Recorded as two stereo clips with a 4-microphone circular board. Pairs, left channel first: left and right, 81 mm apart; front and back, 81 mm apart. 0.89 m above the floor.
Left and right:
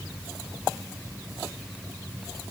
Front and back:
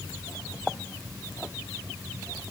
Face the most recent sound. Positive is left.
No sound to turn to.